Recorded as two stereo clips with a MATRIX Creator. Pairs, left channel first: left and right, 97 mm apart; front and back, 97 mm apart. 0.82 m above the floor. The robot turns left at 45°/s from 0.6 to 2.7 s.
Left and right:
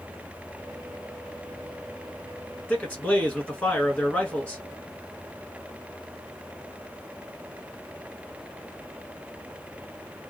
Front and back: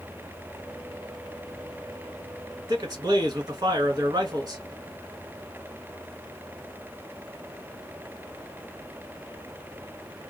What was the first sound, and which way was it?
A man speaking, 155° left.